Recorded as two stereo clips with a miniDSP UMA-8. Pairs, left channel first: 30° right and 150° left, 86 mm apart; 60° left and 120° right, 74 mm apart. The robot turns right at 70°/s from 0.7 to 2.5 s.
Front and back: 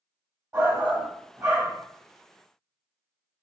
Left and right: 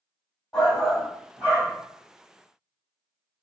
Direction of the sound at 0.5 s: 145° left.